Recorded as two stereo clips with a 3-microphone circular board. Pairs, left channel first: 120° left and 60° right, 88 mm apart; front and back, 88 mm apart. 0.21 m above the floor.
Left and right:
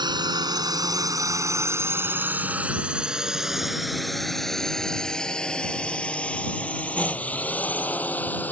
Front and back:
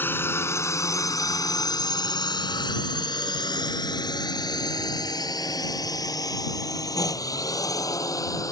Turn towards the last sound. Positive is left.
turn(degrees=50)